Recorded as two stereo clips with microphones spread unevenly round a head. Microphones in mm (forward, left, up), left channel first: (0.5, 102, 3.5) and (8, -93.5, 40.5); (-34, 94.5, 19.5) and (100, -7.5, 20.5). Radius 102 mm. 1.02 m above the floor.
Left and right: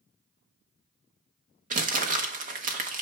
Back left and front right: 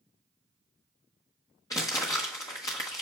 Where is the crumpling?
140° right, 1.0 m.